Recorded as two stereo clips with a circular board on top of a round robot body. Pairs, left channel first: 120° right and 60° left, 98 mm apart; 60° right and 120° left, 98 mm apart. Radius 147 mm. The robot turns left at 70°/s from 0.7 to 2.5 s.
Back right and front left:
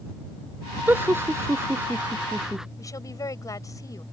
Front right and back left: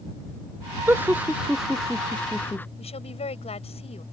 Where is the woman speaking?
65° right.